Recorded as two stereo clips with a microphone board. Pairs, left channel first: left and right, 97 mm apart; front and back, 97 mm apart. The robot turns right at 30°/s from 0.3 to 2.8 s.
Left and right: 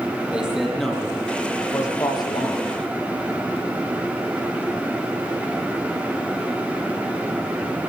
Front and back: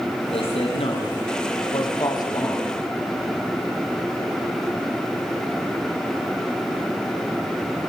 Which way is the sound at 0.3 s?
10° right.